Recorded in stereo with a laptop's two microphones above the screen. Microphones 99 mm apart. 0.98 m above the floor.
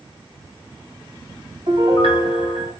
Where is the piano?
65° right (ahead or behind), 2 m.